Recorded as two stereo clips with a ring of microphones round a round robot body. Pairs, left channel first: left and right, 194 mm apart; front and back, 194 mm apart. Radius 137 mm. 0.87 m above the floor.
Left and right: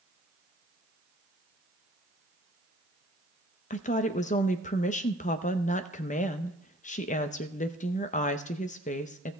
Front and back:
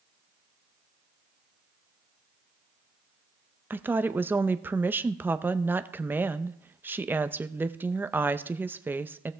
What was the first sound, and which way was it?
A woman speaking, 105° left.